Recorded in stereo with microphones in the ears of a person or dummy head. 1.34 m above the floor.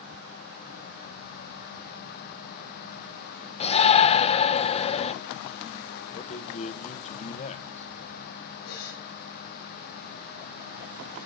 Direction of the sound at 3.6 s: 35° left (ahead or behind).